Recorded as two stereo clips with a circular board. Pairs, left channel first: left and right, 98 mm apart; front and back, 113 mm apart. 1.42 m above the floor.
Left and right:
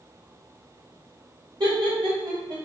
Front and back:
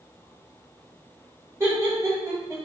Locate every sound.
1.6 s laughter: 120° right, 1.0 m